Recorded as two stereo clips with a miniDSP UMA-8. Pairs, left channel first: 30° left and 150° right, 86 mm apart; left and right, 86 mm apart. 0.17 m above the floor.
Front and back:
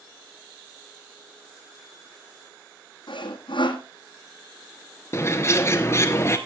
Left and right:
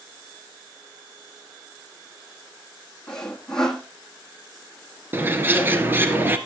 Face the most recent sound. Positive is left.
turn(degrees=-25)